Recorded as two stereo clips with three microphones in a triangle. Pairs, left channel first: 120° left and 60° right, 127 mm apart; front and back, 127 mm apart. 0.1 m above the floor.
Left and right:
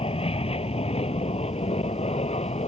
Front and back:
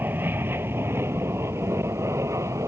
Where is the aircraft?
110° left; by 2.7 s 120° left.